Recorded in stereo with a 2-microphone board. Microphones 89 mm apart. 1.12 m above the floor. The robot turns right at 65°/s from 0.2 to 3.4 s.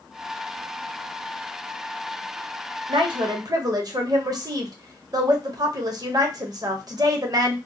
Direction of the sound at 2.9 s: 85° right.